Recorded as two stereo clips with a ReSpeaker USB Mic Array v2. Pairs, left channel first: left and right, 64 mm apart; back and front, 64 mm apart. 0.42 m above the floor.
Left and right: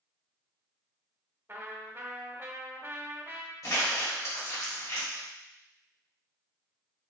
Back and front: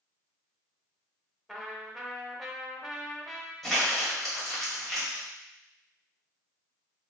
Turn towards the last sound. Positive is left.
turn(degrees=95)